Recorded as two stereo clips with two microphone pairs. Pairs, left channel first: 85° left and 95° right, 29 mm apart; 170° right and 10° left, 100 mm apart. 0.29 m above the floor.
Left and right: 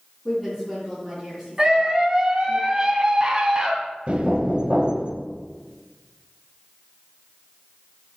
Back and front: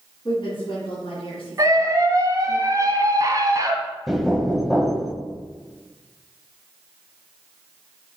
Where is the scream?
35° right, 1.9 m.